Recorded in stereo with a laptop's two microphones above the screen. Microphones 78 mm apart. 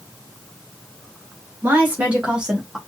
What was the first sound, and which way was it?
A woman speaking, 25° right (ahead or behind).